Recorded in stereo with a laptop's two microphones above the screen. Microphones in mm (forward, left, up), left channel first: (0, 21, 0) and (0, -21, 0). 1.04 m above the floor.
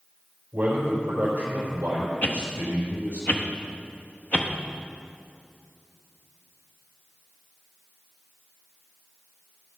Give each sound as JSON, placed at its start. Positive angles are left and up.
{"t": 0.5, "sound": "a man speaking", "side_deg": -50, "distance_m": 3.5}
{"t": 2.2, "sound": "a whoosh", "side_deg": 40, "distance_m": 0.6}